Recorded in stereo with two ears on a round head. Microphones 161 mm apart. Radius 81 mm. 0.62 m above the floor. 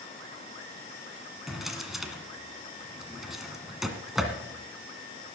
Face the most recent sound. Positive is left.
turn(degrees=0)  # may be behind; listen again after turning